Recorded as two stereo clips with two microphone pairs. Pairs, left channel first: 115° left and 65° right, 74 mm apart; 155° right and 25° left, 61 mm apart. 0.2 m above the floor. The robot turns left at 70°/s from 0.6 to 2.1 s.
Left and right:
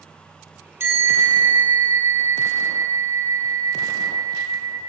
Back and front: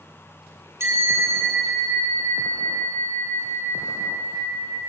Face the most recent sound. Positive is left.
turn(degrees=-100)